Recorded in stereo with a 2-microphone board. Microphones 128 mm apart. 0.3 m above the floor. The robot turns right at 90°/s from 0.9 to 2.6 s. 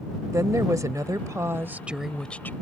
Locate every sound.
0.3 s a woman speaking: 25° right (ahead or behind); by 2.5 s 15° left (ahead or behind)